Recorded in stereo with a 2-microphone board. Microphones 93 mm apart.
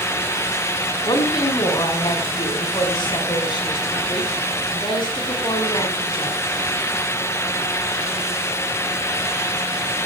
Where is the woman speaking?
60° left (ahead or behind), 5 m.